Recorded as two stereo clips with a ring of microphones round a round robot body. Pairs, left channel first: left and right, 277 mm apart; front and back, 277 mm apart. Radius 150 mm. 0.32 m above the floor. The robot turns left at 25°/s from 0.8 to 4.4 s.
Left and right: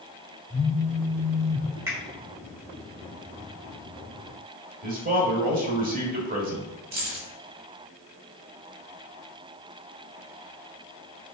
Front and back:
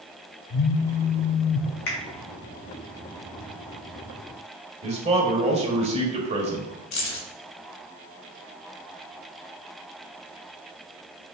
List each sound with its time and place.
0.5 s a phone buzzing: 5° right, 0.5 m; by 1.7 s 25° right, 0.5 m
1.9 s a finger snap: 10° right, 1.6 m; by 2.0 s 15° right, 1.6 m
4.8 s a man speaking: 125° right, 1.3 m
6.9 s keys jangling: 35° right, 1.2 m